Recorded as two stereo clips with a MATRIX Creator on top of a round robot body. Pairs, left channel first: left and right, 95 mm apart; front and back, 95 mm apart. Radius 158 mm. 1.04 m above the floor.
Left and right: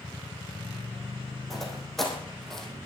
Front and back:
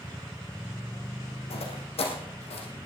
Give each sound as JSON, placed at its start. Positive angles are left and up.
{"t": 1.5, "sound": "footsteps", "azimuth_deg": 0, "distance_m": 3.5}